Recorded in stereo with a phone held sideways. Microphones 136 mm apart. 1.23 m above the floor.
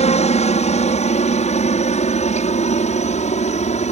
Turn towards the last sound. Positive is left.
turn(degrees=65)  # may be behind; listen again after turning